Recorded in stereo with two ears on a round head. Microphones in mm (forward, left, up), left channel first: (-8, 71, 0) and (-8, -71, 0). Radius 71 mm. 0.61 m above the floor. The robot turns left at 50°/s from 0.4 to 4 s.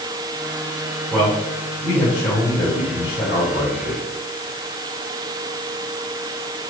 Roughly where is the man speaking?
Behind.